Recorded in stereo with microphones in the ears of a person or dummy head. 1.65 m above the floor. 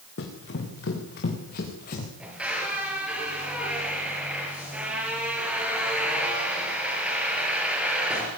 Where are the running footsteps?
65° left (ahead or behind), 6 m; by 2.1 s 50° left (ahead or behind), 7 m.